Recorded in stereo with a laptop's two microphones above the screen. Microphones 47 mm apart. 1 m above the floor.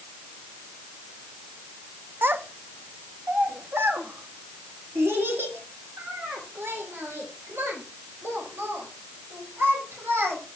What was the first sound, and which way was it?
A child speaking, 45° right (ahead or behind).